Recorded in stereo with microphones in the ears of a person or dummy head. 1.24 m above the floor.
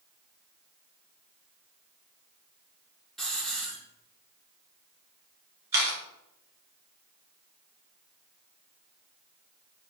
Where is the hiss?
5° left (ahead or behind), 1.1 m.